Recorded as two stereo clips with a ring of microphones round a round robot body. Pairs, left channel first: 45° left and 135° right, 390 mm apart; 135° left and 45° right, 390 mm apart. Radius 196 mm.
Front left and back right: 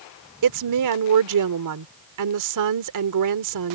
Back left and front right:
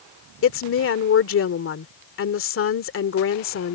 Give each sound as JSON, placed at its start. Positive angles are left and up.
{"t": 0.4, "sound": "a woman speaking", "azimuth_deg": -170}